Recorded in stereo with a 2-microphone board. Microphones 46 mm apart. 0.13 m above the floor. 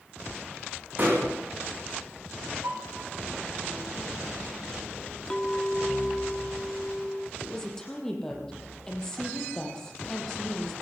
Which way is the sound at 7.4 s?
10° left (ahead or behind).